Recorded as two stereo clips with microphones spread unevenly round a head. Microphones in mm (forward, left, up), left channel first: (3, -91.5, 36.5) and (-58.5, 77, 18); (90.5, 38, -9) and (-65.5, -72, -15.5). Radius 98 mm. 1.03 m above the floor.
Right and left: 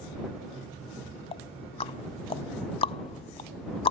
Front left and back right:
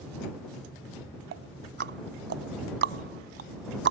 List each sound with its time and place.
1.3 s ticking: 120° right